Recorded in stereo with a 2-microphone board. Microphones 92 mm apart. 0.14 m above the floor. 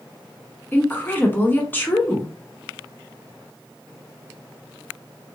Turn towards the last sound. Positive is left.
turn(degrees=20)  # may be behind; listen again after turning